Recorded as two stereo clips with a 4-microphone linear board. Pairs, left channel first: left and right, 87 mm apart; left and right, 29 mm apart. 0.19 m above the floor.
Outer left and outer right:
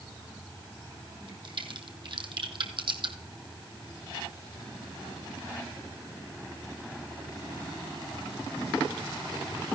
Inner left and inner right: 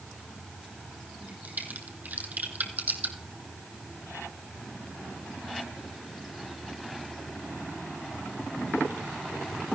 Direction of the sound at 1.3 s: 75° right (ahead or behind).